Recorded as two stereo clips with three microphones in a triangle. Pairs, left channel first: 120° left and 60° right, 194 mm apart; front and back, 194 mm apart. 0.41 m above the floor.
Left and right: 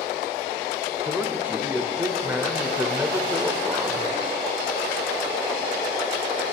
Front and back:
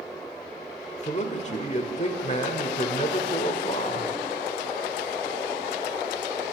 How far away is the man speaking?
About 1.0 m.